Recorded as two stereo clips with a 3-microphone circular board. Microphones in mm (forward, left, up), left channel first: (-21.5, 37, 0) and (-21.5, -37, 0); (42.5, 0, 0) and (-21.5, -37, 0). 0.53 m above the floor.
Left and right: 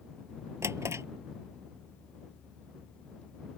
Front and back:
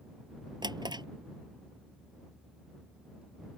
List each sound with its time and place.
0.6 s a drawer: 140° right